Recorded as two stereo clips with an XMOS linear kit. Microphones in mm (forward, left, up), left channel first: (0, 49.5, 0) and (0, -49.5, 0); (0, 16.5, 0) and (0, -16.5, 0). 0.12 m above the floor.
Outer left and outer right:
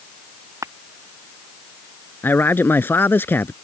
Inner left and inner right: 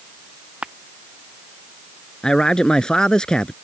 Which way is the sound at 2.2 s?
20° left (ahead or behind).